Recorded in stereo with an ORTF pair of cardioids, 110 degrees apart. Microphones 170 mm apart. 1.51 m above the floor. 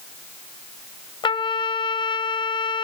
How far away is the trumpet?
About 1.4 m.